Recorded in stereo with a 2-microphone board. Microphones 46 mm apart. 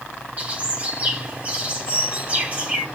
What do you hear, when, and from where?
0.4 s a bird: 35° right (ahead or behind), 2.0 m